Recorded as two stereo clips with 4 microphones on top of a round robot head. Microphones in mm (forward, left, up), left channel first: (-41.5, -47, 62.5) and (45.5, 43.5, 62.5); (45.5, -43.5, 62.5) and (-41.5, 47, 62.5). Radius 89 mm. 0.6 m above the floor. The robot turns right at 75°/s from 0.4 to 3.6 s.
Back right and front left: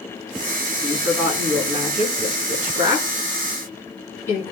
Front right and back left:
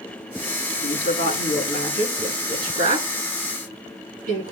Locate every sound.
0.7 s a woman speaking: 60° right, 7.5 m; by 4.5 s 155° left, 7.5 m